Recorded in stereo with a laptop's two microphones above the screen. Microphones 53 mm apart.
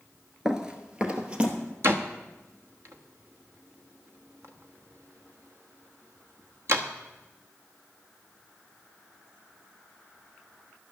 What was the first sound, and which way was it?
Running footsteps, 15° right (ahead or behind).